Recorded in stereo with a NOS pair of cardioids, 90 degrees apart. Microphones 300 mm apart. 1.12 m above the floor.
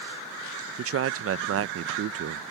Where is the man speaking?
45° right.